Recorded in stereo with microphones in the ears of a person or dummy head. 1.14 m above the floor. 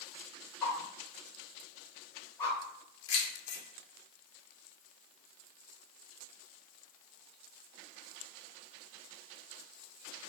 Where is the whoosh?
30° left (ahead or behind), 1.5 m.